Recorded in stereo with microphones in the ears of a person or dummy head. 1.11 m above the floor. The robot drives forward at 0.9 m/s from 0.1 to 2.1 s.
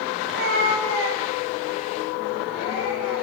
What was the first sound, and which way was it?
A cat meowing, 50° right (ahead or behind).